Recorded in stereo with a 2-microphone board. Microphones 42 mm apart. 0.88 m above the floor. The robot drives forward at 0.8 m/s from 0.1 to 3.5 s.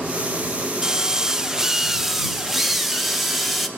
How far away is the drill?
About 0.6 m.